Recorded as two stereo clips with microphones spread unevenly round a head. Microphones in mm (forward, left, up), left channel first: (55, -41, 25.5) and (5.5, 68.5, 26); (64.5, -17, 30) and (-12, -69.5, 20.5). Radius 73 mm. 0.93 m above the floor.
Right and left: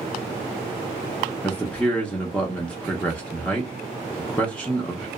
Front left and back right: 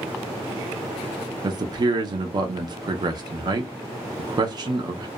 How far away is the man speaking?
About 0.5 m.